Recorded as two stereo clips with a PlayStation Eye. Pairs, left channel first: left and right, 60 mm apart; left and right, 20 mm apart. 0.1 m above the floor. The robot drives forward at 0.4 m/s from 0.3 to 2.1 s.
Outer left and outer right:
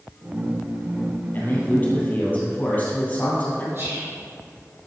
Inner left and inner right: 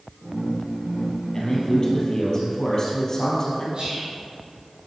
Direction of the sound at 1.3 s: 35° left (ahead or behind).